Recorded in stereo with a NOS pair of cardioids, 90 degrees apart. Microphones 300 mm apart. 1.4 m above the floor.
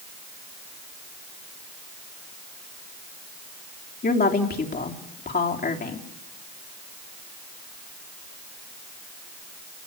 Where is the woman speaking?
30° left, 3.5 m.